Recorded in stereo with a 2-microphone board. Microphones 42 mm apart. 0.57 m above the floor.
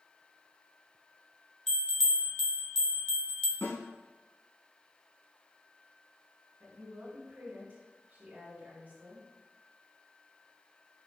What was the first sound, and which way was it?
A bell, 10° left (ahead or behind).